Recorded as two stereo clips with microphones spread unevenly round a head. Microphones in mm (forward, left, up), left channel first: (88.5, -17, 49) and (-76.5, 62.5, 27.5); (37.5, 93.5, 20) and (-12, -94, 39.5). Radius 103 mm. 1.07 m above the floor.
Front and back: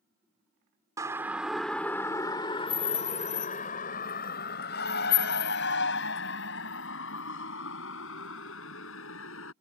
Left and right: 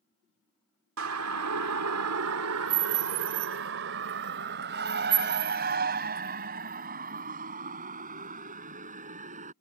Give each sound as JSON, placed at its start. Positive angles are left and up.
{"t": 1.0, "sound": "a siren", "azimuth_deg": -130}